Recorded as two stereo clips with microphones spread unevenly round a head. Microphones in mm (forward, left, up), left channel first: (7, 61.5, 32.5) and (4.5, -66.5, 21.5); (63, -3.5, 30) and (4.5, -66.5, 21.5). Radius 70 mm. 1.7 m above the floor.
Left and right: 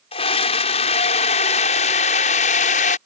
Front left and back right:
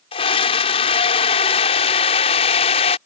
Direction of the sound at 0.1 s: 45° left.